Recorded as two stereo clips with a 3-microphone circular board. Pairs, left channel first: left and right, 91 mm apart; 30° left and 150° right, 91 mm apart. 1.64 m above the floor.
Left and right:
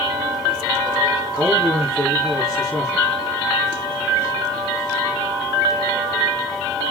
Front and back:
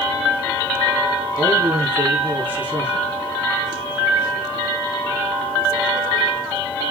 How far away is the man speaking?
About 3.5 m.